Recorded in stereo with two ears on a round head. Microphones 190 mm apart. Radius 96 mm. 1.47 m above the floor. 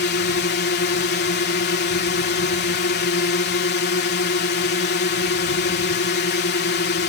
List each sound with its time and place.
0.0 s a drone: 50° left (ahead or behind)